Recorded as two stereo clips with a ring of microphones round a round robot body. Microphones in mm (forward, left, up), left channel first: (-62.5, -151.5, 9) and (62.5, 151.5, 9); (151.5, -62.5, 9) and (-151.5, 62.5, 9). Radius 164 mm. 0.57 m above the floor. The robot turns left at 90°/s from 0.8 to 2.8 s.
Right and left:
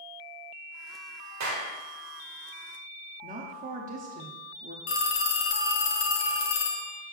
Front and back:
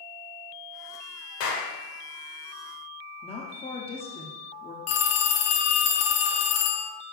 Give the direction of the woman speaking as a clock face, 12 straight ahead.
11 o'clock.